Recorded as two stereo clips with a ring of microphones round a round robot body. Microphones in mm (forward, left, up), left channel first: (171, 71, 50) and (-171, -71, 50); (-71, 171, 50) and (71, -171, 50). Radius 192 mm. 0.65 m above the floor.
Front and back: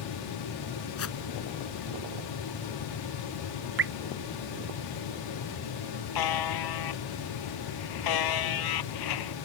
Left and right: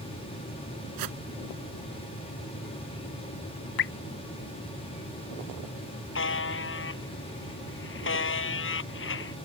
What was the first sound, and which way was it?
A whoosh, 30° right.